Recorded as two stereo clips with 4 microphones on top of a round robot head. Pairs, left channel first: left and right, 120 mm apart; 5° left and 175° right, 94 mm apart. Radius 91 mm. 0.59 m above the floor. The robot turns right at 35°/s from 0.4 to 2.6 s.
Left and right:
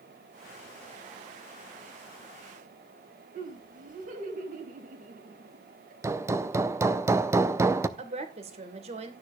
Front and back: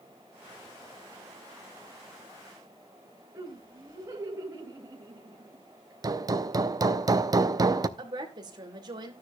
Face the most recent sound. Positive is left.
turn(degrees=-130)